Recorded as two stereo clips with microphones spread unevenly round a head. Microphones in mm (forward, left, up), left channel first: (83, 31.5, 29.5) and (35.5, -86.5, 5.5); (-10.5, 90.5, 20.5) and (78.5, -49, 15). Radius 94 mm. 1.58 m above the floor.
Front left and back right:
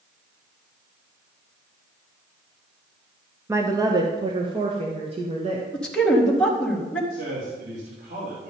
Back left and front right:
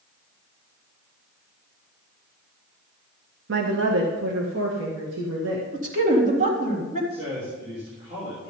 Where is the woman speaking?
40° right, 1.3 m; by 5.6 s 75° right, 2 m.